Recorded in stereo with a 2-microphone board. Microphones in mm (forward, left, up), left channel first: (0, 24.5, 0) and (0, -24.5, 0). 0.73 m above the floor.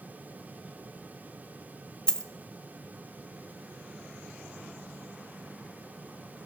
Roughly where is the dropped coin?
Centre.